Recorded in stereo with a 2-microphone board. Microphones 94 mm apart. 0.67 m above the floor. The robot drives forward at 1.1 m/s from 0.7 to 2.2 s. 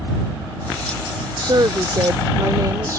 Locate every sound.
1.4 s a woman speaking: 55° right (ahead or behind); by 3.0 s 40° right (ahead or behind)